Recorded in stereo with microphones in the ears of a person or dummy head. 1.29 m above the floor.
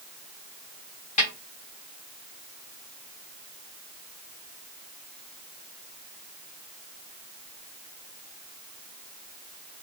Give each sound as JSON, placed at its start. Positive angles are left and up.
{"t": 1.2, "sound": "a snare drum", "side_deg": 30, "distance_m": 1.0}